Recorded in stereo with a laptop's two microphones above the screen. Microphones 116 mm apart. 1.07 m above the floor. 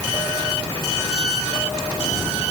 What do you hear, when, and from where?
Only background noise.